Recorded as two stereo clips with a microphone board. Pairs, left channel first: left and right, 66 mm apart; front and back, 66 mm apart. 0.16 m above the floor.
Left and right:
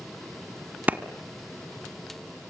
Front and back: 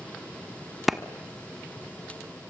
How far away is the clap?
About 1.2 m.